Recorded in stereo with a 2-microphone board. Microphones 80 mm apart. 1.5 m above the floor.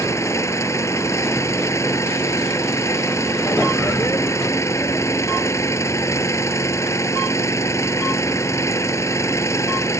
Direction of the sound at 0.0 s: 35° left (ahead or behind).